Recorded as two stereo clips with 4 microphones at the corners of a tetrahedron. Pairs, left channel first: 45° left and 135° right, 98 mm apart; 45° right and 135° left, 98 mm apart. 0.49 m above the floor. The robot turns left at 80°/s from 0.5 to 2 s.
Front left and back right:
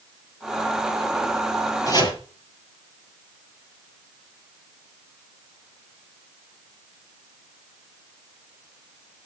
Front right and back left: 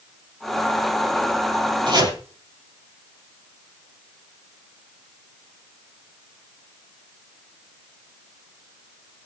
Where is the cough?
I don't hear a cough.